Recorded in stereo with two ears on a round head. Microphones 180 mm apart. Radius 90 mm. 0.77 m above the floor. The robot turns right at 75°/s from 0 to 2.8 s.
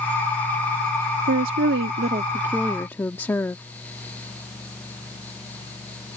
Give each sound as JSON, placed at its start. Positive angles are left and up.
{"t": 1.3, "sound": "a woman speaking", "azimuth_deg": -105}